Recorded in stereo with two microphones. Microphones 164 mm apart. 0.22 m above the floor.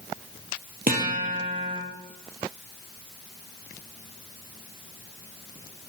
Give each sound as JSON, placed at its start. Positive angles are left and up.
{"t": 0.9, "sound": "a guitar", "side_deg": -65, "distance_m": 1.5}